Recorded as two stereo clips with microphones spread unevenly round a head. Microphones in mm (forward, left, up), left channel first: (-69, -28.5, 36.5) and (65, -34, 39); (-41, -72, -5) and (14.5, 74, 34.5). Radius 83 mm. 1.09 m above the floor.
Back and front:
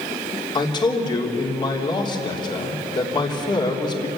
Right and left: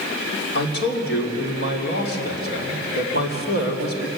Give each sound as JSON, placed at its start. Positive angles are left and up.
{"t": 0.6, "sound": "a man speaking", "azimuth_deg": -125, "distance_m": 3.5}